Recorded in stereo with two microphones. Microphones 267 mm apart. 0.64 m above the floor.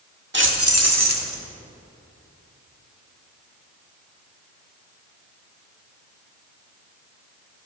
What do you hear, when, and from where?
0.3 s keys jangling: 40° right (ahead or behind), 1.2 m; by 1.4 s 75° right (ahead or behind), 1.6 m